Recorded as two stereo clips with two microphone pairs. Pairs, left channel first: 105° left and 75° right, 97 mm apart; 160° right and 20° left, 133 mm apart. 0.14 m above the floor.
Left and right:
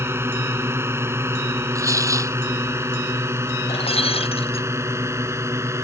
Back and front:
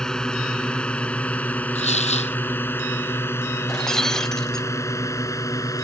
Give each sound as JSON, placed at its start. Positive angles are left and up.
{"t": 0.0, "sound": "a drone", "azimuth_deg": -85}
{"t": 1.8, "sound": "tearing paper", "azimuth_deg": -130}
{"t": 3.7, "sound": "breaking glass", "azimuth_deg": 110}